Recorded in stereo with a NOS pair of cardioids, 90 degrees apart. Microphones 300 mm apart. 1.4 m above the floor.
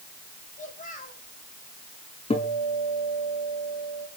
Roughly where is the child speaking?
Ahead left.